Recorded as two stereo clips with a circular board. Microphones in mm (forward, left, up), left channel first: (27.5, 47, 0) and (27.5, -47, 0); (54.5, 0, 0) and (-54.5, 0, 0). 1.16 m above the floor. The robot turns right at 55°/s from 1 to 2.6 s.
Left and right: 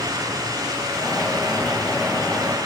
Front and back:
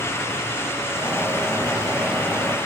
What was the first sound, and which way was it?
Only background noise.